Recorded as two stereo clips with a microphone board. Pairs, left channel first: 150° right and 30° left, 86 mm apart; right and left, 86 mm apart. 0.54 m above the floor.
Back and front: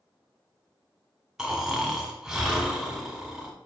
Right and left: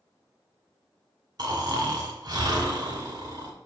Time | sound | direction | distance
1.4 | snoring | 115° left | 1.5 m